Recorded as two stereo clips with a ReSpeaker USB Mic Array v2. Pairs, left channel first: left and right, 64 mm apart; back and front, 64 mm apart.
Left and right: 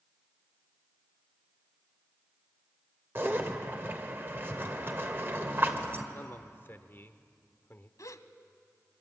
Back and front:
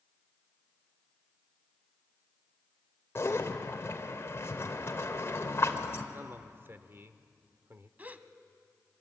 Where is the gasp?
65° left, 1.0 m.